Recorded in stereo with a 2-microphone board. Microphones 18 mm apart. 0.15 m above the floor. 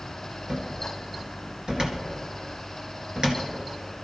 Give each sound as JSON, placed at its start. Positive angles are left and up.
{"t": 0.5, "sound": "a cupboard door", "side_deg": -55, "distance_m": 2.0}